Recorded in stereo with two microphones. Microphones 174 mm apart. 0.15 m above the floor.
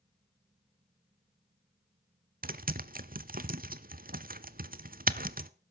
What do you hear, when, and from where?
2.4 s typing on a keyboard: 55° right (ahead or behind), 0.5 m